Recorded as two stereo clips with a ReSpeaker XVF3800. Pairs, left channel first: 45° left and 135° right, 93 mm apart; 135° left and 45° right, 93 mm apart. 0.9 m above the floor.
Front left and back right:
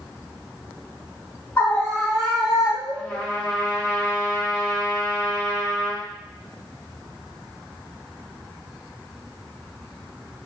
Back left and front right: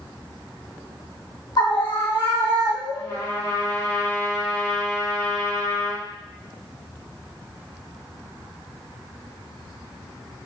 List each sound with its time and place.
1.6 s a scream: 110° left, 1.6 m; by 3.2 s 155° left, 3.5 m
2.9 s a trumpet: 120° left, 1.7 m